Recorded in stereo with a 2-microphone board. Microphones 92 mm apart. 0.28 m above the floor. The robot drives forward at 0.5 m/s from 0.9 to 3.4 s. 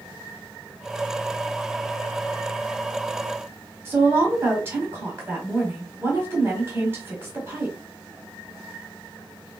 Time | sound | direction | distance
3.9 | a woman speaking | 25° right (ahead or behind) | 1.8 m